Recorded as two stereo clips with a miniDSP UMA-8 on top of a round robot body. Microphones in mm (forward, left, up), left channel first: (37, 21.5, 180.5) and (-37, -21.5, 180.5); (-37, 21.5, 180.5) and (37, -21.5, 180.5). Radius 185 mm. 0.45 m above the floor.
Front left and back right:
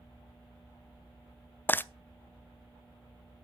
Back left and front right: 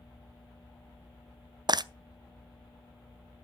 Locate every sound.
1.7 s frying: 30° right, 0.7 m